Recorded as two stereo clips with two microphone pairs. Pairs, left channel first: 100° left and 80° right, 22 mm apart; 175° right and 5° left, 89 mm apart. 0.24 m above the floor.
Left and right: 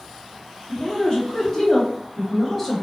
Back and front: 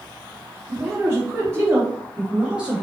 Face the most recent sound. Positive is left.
turn(degrees=40)